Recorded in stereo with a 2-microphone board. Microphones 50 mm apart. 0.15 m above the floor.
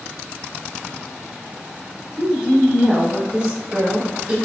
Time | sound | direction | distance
2.2 | a woman speaking | 20° right (ahead or behind) | 1.1 m